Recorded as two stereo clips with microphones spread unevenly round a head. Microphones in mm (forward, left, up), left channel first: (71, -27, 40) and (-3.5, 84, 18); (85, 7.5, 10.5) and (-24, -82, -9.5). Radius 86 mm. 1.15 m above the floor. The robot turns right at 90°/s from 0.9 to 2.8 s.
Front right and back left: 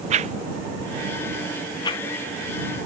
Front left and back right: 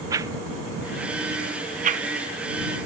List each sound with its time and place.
0.1 s a whoosh: 150° left; by 2.0 s 105° right